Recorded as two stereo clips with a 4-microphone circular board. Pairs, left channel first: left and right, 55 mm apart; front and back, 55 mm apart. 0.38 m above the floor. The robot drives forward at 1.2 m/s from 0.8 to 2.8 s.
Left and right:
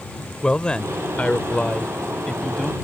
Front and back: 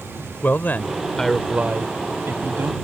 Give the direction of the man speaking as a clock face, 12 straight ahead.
11 o'clock.